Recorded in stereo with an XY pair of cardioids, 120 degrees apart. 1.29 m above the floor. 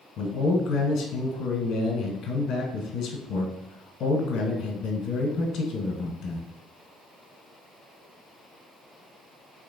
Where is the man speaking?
60° left, 1.1 m.